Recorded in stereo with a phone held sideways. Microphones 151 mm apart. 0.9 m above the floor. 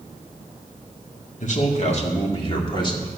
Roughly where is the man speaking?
Left.